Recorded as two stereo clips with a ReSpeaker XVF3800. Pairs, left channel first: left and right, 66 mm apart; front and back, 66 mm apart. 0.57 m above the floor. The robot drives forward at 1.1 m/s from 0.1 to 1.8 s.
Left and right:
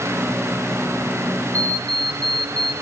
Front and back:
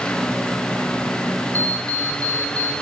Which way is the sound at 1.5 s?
60° right.